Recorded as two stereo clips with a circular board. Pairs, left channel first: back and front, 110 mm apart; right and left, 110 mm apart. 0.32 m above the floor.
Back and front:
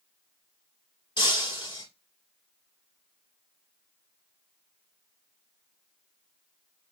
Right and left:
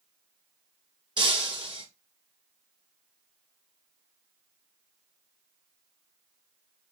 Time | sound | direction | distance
1.2 | breaking glass | 135° left | 2.5 m